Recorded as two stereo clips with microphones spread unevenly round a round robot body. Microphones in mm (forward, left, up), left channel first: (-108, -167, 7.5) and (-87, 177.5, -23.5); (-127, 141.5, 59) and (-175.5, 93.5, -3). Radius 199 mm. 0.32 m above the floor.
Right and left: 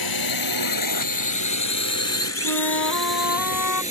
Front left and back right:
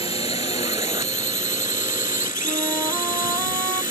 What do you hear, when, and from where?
0.0 s a drone: 110° right; by 3.9 s 165° right
2.4 s a flute: 55° right